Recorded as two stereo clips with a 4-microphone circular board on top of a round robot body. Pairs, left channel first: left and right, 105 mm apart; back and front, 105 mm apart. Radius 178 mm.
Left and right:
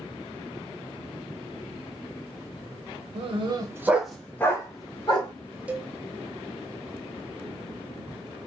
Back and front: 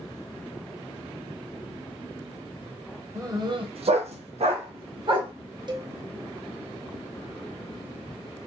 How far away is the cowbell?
About 0.8 m.